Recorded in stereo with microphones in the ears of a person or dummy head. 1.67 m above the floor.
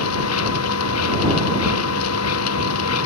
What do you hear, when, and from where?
0.0 s a machine running: 90° left